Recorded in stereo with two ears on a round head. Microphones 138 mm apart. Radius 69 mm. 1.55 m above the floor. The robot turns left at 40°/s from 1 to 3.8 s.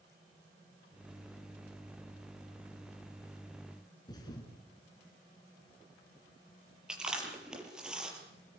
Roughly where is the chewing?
Centre.